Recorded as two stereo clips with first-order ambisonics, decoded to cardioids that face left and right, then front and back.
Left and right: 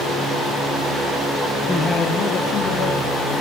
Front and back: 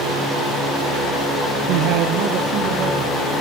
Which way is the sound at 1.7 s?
Straight behind.